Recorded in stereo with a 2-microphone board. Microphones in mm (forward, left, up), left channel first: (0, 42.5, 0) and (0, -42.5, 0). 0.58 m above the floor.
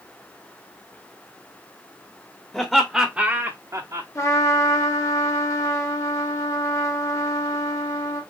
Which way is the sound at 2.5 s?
15° left (ahead or behind).